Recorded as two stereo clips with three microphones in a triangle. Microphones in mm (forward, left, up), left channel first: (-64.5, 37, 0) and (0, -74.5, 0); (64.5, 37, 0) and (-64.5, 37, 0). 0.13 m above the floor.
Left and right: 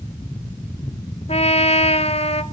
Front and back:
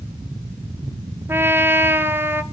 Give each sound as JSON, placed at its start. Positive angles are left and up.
{"t": 1.3, "sound": "a trumpet", "azimuth_deg": 110, "distance_m": 0.9}